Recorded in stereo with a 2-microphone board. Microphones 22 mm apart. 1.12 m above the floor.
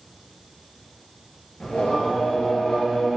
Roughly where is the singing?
Left.